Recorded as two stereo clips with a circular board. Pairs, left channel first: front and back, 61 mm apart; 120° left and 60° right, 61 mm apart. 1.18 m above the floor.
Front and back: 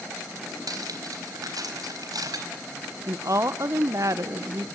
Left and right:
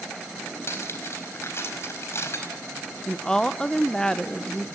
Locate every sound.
0.7 s cutlery clinking: 165° left, 4.5 m
3.1 s a woman speaking: 165° right, 0.9 m